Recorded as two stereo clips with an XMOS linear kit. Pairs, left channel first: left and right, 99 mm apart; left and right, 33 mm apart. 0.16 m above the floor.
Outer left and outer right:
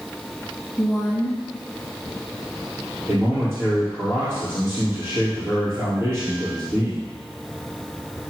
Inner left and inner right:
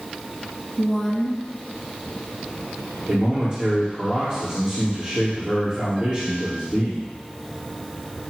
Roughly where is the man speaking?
Right.